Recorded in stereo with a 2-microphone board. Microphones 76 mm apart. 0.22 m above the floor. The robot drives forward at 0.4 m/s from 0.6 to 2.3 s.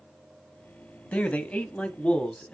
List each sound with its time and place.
1.1 s a man speaking: 20° left (ahead or behind), 1.0 m; by 2.5 s 15° left (ahead or behind), 1.1 m